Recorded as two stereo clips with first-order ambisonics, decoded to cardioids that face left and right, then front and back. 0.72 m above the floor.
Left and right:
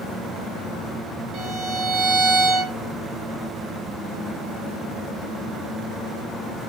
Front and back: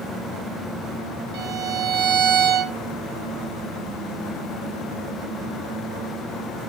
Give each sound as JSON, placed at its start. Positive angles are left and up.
{"t": 1.3, "sound": "a violin", "azimuth_deg": -140, "distance_m": 3.0}